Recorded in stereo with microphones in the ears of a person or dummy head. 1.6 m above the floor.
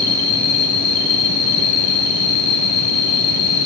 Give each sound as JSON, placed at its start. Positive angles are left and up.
{"t": 0.0, "sound": "an insect", "side_deg": 25, "distance_m": 3.5}